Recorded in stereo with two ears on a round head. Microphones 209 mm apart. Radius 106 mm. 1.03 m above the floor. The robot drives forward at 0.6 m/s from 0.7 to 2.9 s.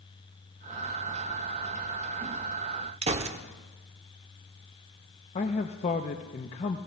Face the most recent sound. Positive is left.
turn(degrees=30)  # may be behind; listen again after turning